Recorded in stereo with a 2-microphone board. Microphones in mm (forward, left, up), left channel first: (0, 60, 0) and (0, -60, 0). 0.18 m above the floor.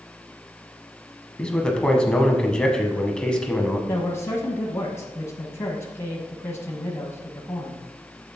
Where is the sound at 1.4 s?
10° left (ahead or behind), 1.0 m.